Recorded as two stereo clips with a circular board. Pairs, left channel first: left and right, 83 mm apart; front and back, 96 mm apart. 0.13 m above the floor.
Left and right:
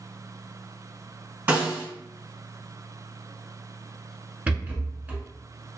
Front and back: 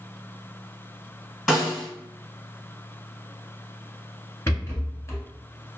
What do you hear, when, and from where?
1.5 s a snare drum: 80° right, 1.6 m
4.5 s a rattle: 35° right, 0.8 m